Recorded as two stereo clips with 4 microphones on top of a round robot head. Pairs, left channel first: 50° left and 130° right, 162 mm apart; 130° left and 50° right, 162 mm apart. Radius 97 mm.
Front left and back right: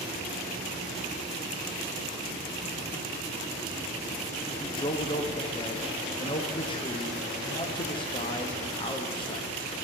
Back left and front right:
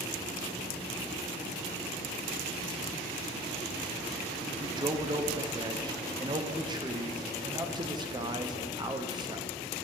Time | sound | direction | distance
4.6 | a man speaking | 5° left | 0.8 m